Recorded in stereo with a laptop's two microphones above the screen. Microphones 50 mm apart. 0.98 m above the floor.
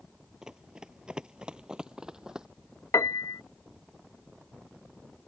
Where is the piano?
70° left (ahead or behind).